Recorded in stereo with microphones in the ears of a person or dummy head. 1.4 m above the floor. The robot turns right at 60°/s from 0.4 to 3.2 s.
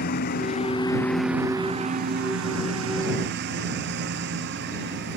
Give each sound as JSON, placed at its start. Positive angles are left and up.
{"t": 0.0, "sound": "a lawn mower", "azimuth_deg": 130}